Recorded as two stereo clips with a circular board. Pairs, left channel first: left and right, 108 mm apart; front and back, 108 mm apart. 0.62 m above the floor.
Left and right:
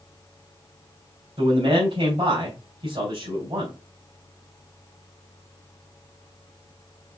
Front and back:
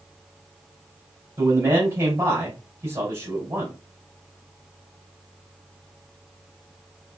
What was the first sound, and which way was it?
A man speaking, 115° right.